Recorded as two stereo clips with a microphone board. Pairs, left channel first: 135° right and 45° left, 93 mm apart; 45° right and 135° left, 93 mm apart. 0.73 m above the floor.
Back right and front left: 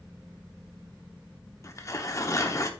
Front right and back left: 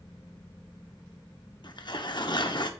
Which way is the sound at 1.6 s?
80° right.